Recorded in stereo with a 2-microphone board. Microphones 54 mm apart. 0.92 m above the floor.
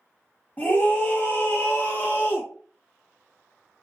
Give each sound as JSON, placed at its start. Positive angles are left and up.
{"t": 0.6, "sound": "a scream", "side_deg": 35, "distance_m": 1.4}